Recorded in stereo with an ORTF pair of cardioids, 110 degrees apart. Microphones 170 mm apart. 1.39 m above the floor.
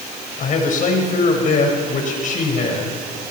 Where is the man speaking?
50° left, 5.5 m.